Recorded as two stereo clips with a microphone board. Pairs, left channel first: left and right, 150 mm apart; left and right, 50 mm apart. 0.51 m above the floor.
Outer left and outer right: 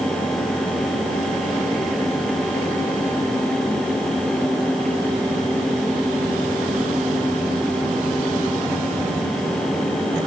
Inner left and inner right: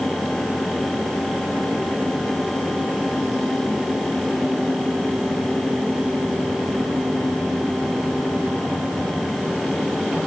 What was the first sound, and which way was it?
Only background noise.